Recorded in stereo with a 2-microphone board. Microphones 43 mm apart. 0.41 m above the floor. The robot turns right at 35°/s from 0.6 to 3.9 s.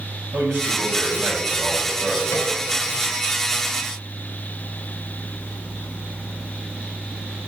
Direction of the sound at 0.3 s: 65° right.